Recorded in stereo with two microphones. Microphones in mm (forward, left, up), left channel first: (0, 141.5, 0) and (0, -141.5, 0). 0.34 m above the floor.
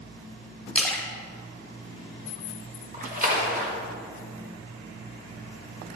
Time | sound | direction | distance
0.8 | a splash | 5° left (ahead or behind) | 1.1 m
2.9 | a splash | 30° right (ahead or behind) | 1.0 m